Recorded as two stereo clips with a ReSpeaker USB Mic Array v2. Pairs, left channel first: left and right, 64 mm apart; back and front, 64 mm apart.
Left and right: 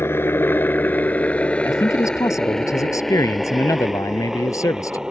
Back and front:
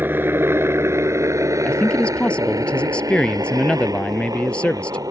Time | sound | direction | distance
0.0 | a helicopter | 50° left | ?
1.6 | a man speaking | 105° left | ?